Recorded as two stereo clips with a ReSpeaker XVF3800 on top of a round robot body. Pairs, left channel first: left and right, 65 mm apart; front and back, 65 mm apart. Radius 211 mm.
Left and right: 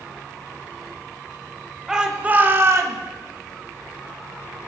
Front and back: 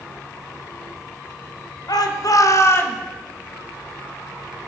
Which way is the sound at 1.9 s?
10° right.